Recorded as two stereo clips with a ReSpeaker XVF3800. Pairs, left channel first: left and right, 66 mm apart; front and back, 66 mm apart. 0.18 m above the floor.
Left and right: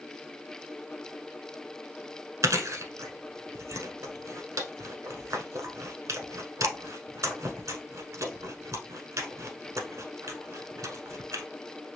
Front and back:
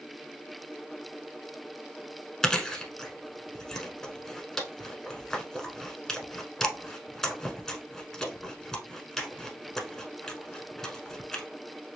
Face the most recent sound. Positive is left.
turn(degrees=-80)